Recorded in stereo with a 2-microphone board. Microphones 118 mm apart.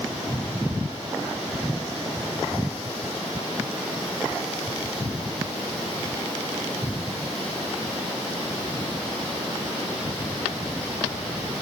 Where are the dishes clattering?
No dishes clattering in this recording.